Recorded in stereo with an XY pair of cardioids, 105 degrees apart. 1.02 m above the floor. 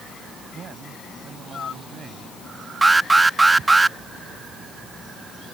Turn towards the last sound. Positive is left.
turn(degrees=-20)